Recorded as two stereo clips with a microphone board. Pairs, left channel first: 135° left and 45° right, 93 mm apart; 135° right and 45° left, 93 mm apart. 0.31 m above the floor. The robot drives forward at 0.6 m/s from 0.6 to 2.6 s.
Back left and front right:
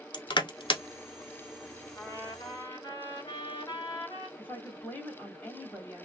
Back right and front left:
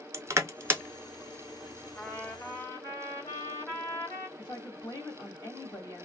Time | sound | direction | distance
0.1 | crushing | 100° left | 0.6 m
2.0 | a trumpet | 165° left | 1.1 m
4.4 | a woman speaking | 160° right | 1.6 m